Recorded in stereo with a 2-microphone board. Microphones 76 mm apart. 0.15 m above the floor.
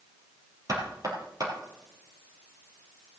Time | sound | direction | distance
0.7 | knocking | 50° right (ahead or behind) | 3 m